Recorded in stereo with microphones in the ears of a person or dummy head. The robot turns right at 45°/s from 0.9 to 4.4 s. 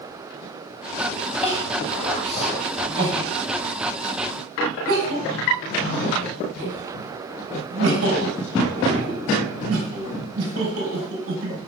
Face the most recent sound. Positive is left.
turn(degrees=-75)  # may be behind; listen again after turning